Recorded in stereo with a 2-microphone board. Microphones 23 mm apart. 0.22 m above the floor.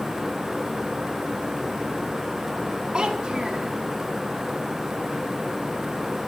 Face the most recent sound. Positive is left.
turn(degrees=-40)  # may be behind; listen again after turning